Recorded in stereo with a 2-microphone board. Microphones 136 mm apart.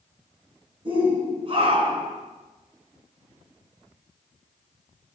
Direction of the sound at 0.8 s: 40° right (ahead or behind).